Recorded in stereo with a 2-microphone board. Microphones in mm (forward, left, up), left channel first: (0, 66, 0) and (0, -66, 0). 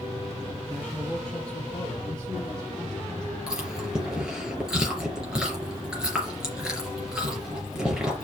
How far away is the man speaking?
About 3.5 m.